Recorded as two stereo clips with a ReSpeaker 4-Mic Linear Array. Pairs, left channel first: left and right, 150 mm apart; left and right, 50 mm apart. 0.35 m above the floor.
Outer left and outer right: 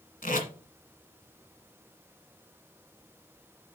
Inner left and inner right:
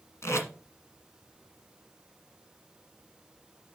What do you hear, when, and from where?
0.2 s tape being pulled: 70° left (ahead or behind), 1.7 m